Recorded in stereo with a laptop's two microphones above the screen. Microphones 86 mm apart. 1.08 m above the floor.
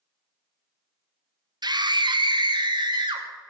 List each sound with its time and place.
1.6 s a scream: 60° right (ahead or behind), 1.0 m; by 3.2 s 70° right (ahead or behind), 2.5 m